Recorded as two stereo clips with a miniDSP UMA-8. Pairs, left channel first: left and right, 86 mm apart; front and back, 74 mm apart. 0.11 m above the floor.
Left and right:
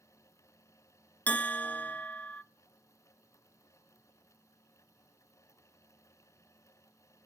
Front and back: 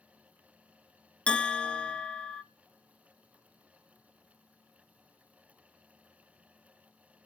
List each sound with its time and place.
1.3 s a bell: 50° left, 0.5 m